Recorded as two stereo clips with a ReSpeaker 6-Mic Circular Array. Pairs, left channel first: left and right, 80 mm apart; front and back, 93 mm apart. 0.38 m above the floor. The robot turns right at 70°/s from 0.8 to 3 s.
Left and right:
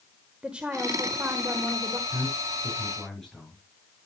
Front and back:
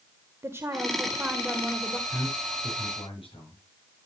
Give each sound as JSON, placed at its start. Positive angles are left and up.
{"t": 0.4, "sound": "a woman speaking", "azimuth_deg": -155, "distance_m": 1.3}
{"t": 2.1, "sound": "a man speaking", "azimuth_deg": -55, "distance_m": 8.0}